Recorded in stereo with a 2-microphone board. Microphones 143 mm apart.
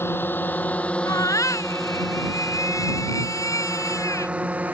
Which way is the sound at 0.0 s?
15° left (ahead or behind).